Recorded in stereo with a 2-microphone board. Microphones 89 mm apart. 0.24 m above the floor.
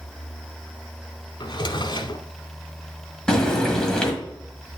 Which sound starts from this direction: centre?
Frying, at 3.3 s.